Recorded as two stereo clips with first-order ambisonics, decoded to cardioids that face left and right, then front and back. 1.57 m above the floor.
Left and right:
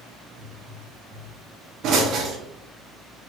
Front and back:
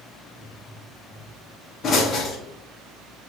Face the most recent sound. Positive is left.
turn(degrees=-60)